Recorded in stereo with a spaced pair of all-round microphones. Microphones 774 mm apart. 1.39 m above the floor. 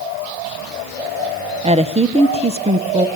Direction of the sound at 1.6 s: 10° right (ahead or behind).